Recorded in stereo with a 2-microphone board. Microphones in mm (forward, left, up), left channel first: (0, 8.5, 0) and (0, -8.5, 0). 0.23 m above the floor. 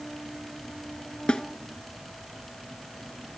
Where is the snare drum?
60° left (ahead or behind), 0.6 m.